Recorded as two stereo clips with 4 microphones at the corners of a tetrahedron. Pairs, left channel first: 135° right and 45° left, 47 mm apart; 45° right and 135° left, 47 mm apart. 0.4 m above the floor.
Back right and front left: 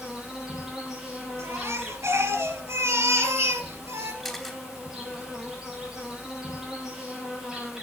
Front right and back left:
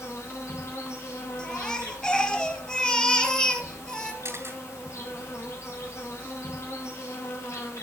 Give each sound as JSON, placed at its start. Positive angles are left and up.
{"t": 0.0, "sound": "an insect", "azimuth_deg": -35, "distance_m": 4.5}
{"t": 1.4, "sound": "a baby crying", "azimuth_deg": 30, "distance_m": 2.5}
{"t": 4.2, "sound": "a camera shutter", "azimuth_deg": 135, "distance_m": 3.0}